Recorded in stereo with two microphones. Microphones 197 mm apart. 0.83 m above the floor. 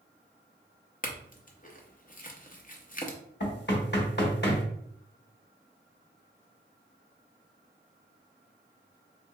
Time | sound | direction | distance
1.0 | a clink | 45° left (ahead or behind) | 0.6 m
3.4 | knocking | 65° left (ahead or behind) | 1.0 m